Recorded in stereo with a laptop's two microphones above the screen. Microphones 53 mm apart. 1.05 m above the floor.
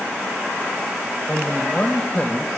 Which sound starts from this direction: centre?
A man speaking, at 1.3 s.